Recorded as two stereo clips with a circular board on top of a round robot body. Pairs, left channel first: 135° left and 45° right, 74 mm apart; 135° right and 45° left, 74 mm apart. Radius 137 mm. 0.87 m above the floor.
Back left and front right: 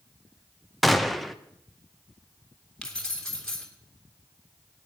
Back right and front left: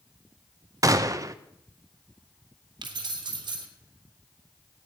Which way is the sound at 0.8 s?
45° left.